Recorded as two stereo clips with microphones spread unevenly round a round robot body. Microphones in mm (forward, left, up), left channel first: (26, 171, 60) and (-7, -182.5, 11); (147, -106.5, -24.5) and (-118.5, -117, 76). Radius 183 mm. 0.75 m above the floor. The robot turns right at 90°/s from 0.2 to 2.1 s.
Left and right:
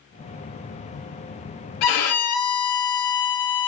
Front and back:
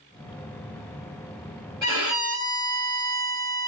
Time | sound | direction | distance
1.8 | a violin | 115° left | 0.7 m